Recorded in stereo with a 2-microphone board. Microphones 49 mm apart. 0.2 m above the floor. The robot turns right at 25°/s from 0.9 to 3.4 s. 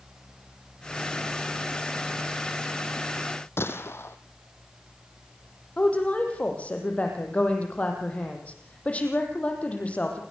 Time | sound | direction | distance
3.6 | a gunshot | 55° left (ahead or behind) | 2 m
5.8 | a woman speaking | 25° left (ahead or behind) | 7 m